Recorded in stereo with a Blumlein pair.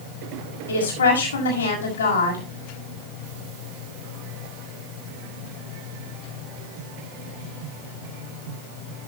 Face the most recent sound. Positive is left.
turn(degrees=65)